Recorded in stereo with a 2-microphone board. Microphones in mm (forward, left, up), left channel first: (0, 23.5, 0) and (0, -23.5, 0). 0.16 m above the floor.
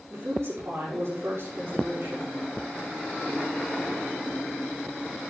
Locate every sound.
0.1 s a woman speaking: 65° right (ahead or behind), 6.5 m